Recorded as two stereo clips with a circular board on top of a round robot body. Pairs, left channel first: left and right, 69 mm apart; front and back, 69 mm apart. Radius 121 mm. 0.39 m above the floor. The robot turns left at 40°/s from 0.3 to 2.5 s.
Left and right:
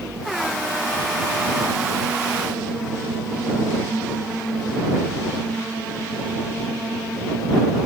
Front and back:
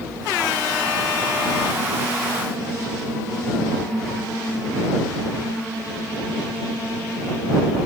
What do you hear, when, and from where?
Only background noise.